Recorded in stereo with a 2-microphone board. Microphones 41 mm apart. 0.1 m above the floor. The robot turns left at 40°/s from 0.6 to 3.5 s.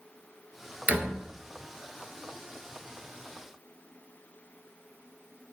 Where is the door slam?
45° right (ahead or behind), 1.0 m; by 1.2 s 40° right (ahead or behind), 1.0 m.